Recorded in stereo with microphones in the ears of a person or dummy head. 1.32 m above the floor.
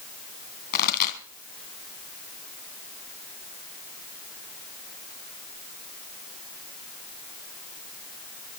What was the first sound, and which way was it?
A pop, 45° left (ahead or behind).